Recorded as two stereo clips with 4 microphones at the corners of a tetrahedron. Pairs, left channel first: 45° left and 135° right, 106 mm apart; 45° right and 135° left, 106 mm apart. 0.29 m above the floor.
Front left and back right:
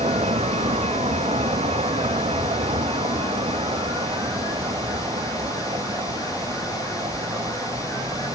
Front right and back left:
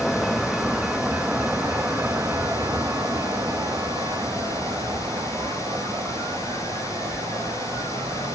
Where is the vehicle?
135° right; by 8.4 s straight behind.